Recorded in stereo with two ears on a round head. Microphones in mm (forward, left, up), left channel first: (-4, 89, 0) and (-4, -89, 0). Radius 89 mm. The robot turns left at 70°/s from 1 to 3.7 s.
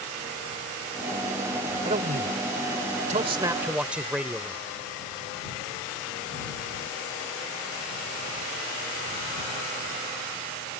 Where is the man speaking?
45° right; by 4.6 s 170° right.